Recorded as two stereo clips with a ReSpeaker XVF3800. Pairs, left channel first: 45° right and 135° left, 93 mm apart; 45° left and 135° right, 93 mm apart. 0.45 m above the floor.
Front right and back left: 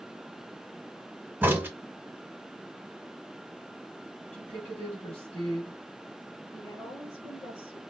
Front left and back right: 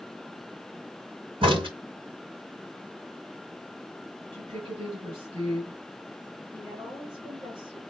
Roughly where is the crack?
Behind right.